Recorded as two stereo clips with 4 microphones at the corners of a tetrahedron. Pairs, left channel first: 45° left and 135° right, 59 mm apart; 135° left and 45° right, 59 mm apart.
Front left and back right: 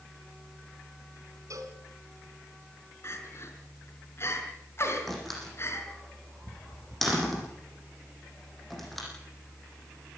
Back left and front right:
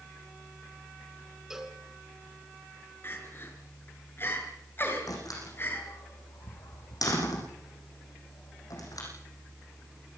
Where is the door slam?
130° left, 8.5 m.